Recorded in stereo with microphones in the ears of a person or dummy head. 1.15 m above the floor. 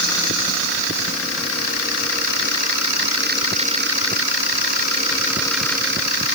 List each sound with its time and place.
Only background noise.